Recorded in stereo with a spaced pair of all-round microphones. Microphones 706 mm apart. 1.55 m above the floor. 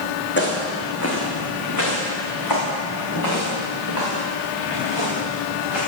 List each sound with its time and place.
0.4 s footsteps: 15° left (ahead or behind), 4.5 m; by 5.8 s 40° left (ahead or behind), 9.5 m